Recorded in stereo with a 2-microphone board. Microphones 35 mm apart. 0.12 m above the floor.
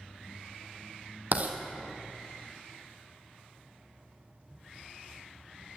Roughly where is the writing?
Right.